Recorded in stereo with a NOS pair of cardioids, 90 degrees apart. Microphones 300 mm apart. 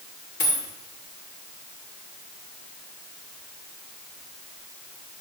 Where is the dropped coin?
35° left, 2.5 m.